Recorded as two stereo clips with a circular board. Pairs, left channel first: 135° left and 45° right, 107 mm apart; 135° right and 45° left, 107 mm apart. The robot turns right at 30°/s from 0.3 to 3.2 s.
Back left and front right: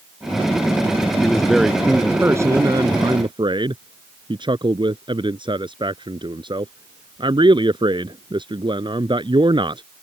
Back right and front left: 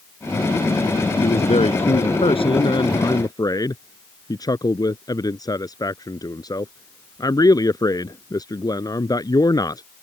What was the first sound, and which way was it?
A man speaking, 145° right.